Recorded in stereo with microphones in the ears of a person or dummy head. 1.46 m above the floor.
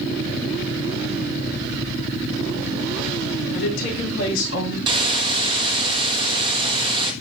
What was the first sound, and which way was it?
A woman speaking, 70° left (ahead or behind).